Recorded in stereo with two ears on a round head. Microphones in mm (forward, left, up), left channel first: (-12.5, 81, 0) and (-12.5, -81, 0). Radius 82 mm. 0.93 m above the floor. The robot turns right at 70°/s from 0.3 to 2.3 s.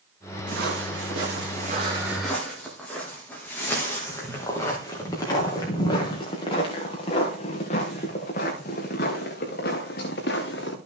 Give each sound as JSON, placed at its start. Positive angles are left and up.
{"t": 0.5, "sound": "footsteps", "side_deg": -50, "distance_m": 6.0}